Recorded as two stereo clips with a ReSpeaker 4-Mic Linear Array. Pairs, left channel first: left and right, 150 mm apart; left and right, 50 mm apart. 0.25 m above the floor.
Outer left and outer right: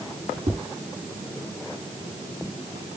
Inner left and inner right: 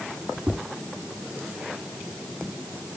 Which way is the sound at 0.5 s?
40° right (ahead or behind).